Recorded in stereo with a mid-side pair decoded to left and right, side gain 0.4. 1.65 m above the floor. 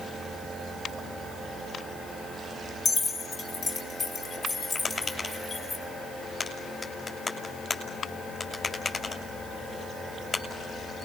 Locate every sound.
2.9 s keys jangling: 65° left, 4 m; by 5.8 s 55° left, 6 m
4.8 s tapping: 40° left, 6 m